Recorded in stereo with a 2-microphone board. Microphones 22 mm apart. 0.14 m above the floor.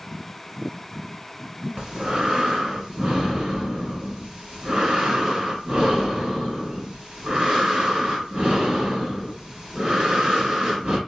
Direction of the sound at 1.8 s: 40° right (ahead or behind).